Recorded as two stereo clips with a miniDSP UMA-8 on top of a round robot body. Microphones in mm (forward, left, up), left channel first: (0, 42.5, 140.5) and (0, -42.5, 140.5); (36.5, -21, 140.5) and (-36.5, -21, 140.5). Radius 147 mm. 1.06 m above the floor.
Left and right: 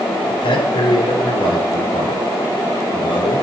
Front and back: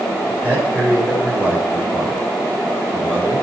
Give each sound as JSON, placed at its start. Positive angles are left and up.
{"t": 0.3, "sound": "a man speaking", "azimuth_deg": 70, "distance_m": 3.5}